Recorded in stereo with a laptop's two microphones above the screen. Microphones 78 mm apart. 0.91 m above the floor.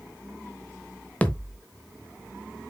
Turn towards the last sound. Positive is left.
turn(degrees=20)  # may be behind; listen again after turning